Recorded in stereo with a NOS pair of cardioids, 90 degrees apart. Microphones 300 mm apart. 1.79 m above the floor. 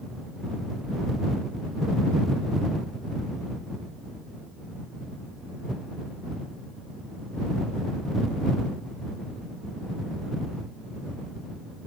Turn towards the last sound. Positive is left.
No sound to turn to.